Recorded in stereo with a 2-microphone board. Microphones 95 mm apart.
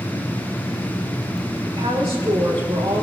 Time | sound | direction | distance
1.6 | a woman speaking | 75° right (ahead or behind) | 4.5 m